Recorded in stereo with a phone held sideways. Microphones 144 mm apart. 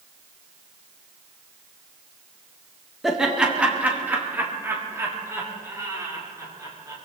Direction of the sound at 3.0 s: Centre (ahead or behind).